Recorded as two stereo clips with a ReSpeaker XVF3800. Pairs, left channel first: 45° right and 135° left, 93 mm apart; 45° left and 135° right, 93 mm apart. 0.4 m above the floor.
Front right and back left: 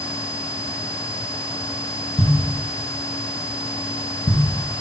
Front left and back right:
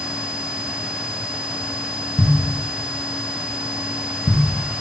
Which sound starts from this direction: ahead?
A thud, at 2.2 s.